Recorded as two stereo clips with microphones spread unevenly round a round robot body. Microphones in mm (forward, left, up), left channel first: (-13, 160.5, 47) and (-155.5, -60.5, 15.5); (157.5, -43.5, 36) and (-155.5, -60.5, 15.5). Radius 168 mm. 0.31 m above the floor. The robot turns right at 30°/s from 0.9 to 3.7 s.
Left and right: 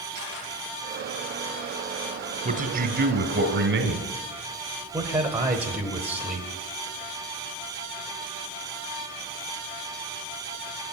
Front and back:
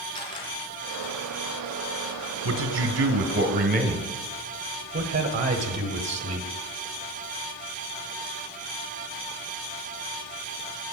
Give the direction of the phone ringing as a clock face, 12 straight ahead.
No phone ringing in this recording.